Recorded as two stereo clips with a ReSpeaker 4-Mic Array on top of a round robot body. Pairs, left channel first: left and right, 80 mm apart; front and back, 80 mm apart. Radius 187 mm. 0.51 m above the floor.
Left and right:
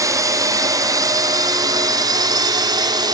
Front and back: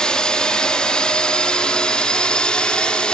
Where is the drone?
75° right.